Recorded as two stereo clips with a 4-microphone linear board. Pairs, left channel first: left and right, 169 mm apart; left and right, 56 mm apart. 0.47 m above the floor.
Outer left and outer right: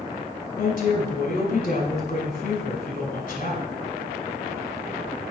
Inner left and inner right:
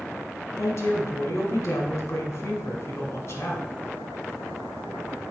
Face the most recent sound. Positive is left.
turn(degrees=55)  # may be behind; listen again after turning